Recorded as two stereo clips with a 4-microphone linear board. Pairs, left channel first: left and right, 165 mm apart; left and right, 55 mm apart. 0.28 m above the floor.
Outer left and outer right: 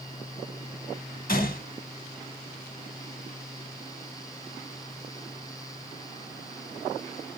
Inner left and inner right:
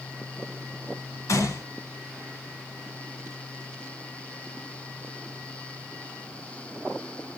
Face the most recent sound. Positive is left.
turn(degrees=60)  # may be behind; listen again after turning